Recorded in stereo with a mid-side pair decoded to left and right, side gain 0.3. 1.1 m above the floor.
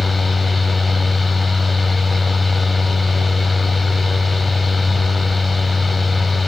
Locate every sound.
0.0 s a fan: 35° left, 1.7 m